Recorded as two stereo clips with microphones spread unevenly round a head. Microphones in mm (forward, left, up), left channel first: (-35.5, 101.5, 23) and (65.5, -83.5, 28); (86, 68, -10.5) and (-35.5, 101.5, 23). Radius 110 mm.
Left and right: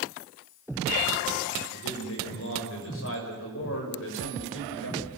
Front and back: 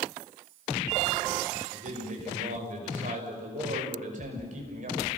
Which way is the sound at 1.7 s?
150° left.